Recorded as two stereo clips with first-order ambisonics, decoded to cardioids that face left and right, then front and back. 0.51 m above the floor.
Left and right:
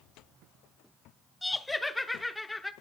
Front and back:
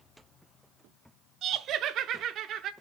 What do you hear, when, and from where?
1.4 s laughter: 170° left, 0.7 m